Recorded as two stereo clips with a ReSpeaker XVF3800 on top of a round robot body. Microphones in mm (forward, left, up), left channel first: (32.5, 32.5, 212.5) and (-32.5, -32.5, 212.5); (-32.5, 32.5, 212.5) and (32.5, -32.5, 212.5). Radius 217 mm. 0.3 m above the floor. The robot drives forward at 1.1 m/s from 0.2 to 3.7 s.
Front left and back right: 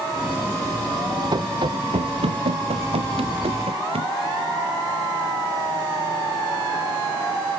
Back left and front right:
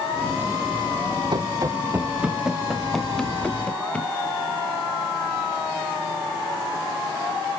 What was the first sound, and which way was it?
Running footsteps, 85° right.